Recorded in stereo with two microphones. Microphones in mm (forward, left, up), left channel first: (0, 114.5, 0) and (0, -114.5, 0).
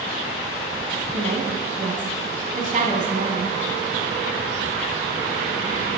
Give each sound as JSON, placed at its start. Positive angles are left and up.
{"t": 1.1, "sound": "a woman speaking", "side_deg": -35, "distance_m": 1.1}